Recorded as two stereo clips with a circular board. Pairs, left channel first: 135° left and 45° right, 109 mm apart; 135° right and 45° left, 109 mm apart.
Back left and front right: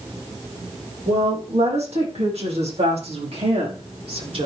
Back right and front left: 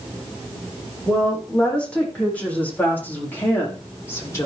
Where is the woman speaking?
55° right, 7 m; by 4.5 s 70° right, 5 m.